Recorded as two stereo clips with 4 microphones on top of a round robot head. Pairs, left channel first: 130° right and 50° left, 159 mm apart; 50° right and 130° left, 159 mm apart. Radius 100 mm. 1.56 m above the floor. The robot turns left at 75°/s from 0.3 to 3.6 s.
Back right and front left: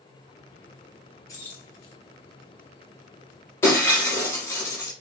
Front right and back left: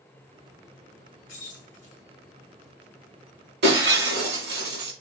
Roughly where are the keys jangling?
Ahead right.